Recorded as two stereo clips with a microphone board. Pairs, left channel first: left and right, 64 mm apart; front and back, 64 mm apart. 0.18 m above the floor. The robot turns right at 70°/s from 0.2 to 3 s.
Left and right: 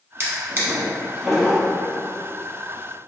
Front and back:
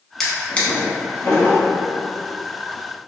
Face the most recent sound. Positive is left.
turn(degrees=110)